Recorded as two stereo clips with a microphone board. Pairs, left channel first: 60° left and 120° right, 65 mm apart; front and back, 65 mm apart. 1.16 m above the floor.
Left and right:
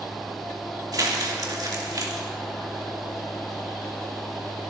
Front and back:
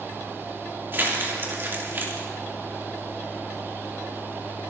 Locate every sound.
0.9 s crumpling: 125° right, 3 m